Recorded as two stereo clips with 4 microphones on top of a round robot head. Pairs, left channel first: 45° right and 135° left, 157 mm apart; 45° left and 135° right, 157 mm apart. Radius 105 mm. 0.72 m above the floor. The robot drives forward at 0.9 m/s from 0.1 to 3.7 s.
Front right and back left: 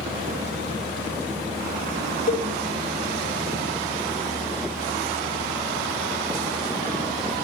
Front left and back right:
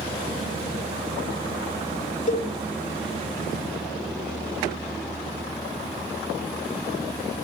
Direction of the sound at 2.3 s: Straight ahead.